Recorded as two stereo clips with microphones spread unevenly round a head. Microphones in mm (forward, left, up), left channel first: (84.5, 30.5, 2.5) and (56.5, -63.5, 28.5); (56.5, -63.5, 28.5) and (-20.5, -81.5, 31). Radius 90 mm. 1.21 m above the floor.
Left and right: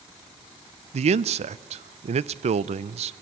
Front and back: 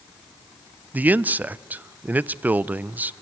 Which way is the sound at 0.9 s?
95° right.